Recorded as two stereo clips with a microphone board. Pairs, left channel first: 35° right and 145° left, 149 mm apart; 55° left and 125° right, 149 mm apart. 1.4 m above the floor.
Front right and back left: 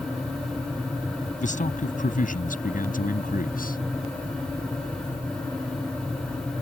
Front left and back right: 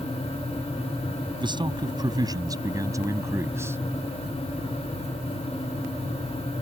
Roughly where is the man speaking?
Ahead right.